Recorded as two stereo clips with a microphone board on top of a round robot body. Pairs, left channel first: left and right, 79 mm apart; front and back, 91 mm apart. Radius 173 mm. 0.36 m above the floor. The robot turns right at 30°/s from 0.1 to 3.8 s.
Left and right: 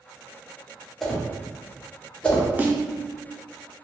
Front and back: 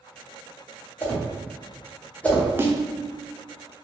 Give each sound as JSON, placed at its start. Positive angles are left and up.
{"t": 1.0, "sound": "a whoosh", "azimuth_deg": 5, "distance_m": 1.3}
{"t": 2.6, "sound": "a snare drum", "azimuth_deg": -140, "distance_m": 0.7}